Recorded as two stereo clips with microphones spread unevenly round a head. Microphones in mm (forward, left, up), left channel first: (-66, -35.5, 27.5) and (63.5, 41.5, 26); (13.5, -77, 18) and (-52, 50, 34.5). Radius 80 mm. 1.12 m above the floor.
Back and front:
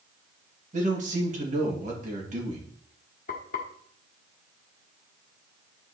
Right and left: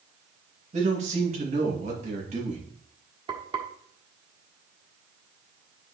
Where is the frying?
170° left, 1.4 m.